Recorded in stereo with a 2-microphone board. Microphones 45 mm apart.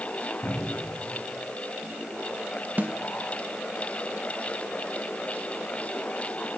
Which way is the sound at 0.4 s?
55° left (ahead or behind).